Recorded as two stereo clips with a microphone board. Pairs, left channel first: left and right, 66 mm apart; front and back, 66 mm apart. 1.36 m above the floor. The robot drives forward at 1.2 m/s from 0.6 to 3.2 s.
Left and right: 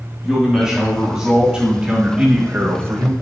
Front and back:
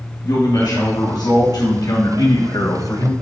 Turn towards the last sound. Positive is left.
turn(degrees=-55)